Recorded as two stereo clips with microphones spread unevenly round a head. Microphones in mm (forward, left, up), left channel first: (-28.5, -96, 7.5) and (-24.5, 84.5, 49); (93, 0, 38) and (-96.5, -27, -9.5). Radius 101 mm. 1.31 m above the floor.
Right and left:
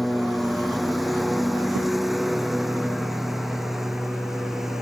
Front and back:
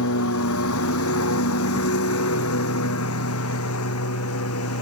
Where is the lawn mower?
Straight ahead.